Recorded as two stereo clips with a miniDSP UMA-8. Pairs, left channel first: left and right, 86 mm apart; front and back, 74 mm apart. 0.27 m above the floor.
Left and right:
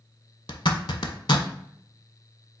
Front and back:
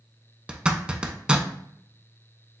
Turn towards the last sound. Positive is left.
turn(degrees=105)